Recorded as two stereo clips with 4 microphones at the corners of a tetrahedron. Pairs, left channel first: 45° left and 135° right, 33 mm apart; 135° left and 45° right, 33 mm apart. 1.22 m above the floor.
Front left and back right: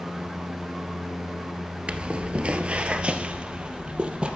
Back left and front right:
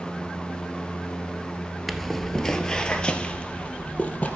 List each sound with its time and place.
1.9 s footsteps: 135° right, 1.3 m; by 4.3 s 170° left, 2 m